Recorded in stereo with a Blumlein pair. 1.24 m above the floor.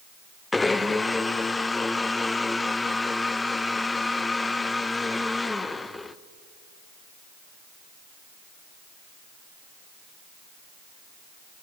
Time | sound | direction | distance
0.5 | a blender | 10° left | 0.6 m